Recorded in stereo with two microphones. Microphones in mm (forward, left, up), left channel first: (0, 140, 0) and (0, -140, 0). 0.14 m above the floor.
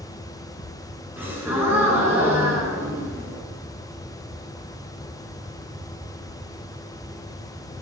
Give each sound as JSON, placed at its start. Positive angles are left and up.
{"t": 1.2, "sound": "a gasp", "side_deg": -10, "distance_m": 1.5}